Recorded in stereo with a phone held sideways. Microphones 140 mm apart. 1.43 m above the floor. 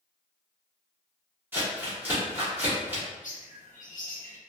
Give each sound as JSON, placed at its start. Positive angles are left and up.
{"t": 1.5, "sound": "crumpling", "side_deg": -15, "distance_m": 1.8}
{"t": 3.2, "sound": "a bird", "side_deg": 70, "distance_m": 0.9}